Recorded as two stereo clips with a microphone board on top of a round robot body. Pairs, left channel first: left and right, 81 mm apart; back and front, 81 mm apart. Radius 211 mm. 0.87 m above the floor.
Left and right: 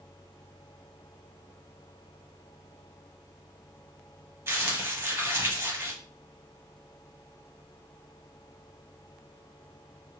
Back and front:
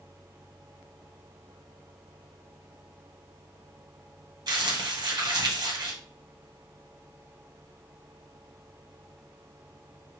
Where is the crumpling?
30° right, 1.6 m.